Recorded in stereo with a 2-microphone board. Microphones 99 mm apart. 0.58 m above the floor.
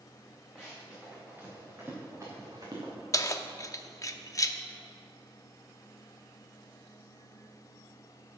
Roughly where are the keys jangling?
Left.